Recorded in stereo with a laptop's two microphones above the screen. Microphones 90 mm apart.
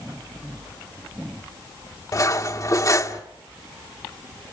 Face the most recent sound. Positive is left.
turn(degrees=40)  # may be behind; listen again after turning